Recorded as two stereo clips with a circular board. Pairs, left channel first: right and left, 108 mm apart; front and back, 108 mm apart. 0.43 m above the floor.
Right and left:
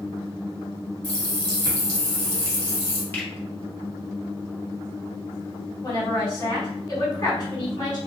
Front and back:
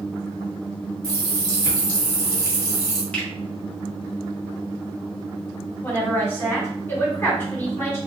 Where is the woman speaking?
55° right, 1.8 m.